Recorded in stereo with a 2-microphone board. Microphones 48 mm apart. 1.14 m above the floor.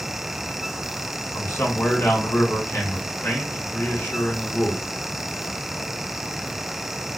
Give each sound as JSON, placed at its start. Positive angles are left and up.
{"t": 1.3, "sound": "a man speaking", "side_deg": 70, "distance_m": 2.0}